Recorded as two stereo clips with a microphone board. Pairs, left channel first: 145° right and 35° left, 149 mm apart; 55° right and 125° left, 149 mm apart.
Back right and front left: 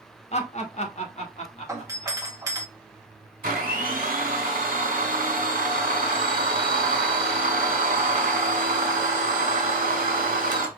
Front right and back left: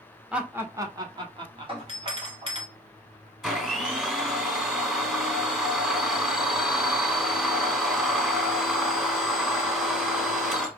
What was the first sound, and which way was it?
Laughter, 155° right.